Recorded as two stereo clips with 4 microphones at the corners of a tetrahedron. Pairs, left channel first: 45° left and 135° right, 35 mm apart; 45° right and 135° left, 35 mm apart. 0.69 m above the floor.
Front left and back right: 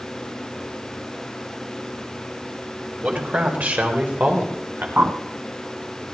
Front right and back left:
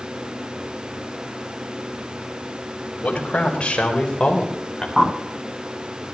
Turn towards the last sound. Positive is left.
turn(degrees=-145)